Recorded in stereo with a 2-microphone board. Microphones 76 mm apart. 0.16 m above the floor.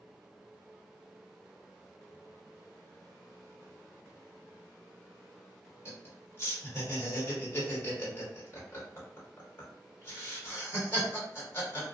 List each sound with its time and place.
5.8 s laughter: 30° left (ahead or behind), 1.4 m